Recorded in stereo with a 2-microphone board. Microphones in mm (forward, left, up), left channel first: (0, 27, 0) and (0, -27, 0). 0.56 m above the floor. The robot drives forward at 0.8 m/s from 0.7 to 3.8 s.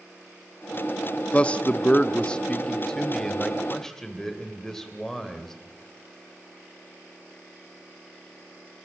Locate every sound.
1.3 s a man speaking: 25° left (ahead or behind), 0.8 m; by 5.5 s 10° left (ahead or behind), 2.0 m